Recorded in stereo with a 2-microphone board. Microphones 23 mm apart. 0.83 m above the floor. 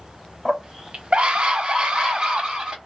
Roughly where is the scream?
Right.